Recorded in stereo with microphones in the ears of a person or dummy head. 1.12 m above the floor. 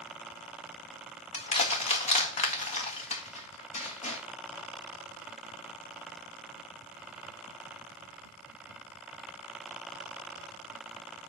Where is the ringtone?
No ringtone in this recording.